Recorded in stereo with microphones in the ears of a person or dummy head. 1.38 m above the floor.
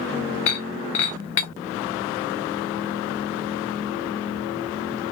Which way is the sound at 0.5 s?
35° left (ahead or behind).